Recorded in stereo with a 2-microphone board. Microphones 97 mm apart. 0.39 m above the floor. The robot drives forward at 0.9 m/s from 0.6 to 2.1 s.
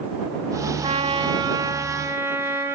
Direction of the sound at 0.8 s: 80° right.